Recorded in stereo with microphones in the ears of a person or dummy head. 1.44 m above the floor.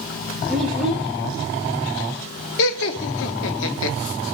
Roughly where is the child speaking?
Centre.